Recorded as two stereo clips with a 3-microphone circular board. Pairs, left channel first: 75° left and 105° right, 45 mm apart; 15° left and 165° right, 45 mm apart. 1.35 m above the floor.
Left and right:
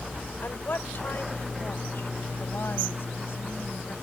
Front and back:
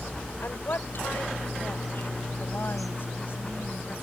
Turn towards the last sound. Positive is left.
turn(degrees=45)